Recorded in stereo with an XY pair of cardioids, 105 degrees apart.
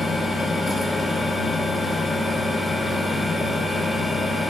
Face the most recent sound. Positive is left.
turn(degrees=25)